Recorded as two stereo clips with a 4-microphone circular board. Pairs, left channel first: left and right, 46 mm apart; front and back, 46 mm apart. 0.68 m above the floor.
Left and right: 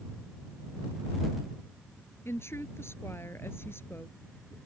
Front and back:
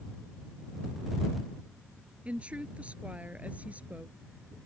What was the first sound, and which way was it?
A woman speaking, 120° left.